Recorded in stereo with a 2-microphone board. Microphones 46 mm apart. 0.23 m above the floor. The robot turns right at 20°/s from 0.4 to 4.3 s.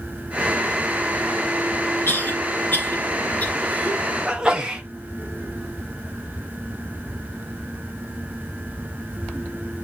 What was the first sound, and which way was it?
A cough, 65° left (ahead or behind).